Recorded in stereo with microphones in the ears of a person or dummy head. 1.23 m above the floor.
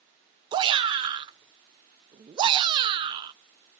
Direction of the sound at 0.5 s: 25° right (ahead or behind).